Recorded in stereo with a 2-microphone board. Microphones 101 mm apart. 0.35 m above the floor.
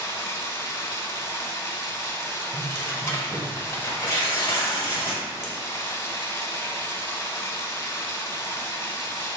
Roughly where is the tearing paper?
Left.